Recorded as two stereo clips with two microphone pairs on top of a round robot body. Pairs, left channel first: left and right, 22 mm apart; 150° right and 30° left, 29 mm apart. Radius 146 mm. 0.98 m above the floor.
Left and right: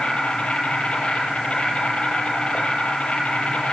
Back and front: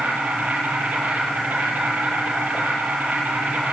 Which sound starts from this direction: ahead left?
An insect, at 0.0 s.